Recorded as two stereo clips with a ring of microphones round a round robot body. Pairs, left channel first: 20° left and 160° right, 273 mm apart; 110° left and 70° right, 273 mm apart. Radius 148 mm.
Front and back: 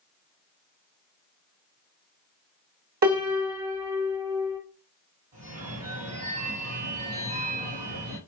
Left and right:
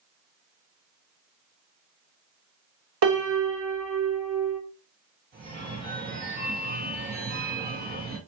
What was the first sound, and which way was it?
A piano, 105° right.